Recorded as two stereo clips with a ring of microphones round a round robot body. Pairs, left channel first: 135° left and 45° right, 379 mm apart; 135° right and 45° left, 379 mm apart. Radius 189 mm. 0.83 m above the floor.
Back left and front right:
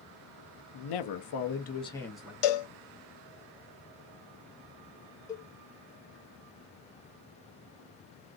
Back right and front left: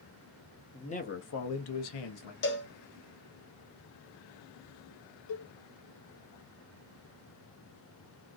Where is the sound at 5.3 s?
145° right, 0.7 m.